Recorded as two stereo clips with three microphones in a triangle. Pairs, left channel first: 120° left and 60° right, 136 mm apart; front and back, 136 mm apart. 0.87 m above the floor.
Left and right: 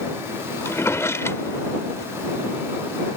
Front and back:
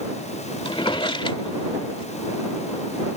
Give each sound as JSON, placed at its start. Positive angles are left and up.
{"t": 0.7, "sound": "a drawer", "azimuth_deg": 50}